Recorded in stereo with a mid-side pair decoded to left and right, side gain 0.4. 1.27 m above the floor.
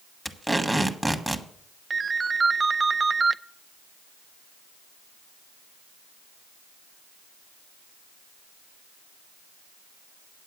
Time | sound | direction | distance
0.2 | tape being pulled | 10° right | 1.2 m
1.9 | a ringtone | 30° right | 0.5 m